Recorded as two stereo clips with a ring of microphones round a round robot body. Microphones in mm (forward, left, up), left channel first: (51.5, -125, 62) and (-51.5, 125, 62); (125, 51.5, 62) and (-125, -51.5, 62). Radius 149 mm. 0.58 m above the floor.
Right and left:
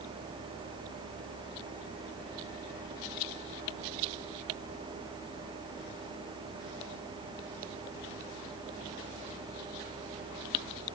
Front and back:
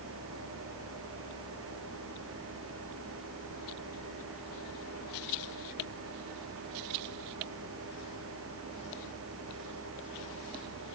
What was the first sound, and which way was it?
Only background noise.